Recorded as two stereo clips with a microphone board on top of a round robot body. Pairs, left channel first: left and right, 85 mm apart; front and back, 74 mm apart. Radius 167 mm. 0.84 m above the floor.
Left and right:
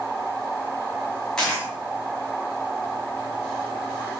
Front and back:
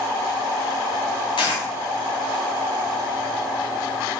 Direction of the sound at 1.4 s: 5° left.